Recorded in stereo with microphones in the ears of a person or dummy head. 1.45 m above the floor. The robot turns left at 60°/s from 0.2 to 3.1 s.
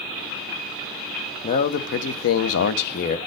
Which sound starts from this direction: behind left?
A man speaking, at 1.4 s.